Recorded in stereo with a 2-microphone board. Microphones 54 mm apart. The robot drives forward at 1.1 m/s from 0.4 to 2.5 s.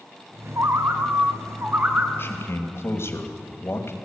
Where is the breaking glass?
No breaking glass in this recording.